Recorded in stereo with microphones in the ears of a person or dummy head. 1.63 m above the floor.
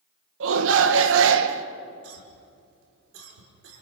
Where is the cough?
90° right, 5 m.